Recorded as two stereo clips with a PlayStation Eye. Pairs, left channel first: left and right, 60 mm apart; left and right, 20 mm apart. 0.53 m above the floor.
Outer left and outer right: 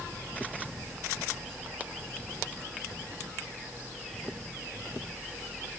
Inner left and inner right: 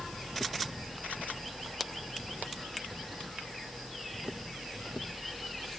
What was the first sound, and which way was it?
Only background noise.